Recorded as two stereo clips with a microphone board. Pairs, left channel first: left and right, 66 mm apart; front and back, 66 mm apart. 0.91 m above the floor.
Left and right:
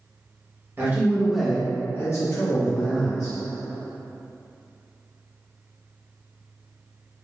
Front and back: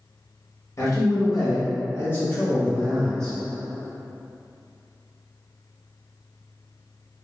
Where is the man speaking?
35° right, 1.1 m; by 3.4 s 85° left, 1.7 m.